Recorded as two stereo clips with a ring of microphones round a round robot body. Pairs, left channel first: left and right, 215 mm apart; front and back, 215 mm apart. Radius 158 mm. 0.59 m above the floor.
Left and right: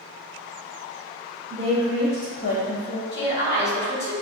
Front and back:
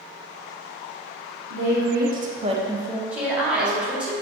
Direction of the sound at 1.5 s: 150° right.